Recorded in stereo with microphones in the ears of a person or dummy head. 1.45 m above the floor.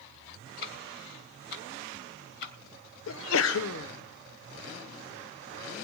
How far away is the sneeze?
About 0.8 m.